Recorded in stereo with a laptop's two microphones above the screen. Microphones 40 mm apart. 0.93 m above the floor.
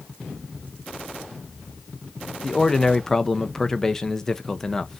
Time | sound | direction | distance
2.4 | a man speaking | 10° left (ahead or behind) | 0.6 m